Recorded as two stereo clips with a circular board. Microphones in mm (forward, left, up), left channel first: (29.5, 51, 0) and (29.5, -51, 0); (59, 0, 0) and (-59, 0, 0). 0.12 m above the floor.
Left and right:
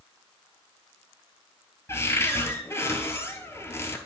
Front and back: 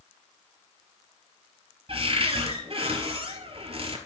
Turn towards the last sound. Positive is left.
turn(degrees=150)